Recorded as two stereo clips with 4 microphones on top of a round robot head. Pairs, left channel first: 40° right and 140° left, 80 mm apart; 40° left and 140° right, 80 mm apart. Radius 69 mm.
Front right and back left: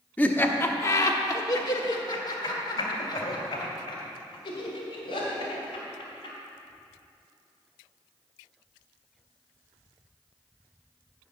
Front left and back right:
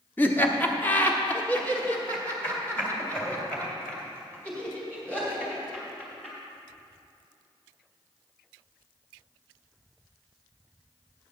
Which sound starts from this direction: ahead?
Laughter, at 0.2 s.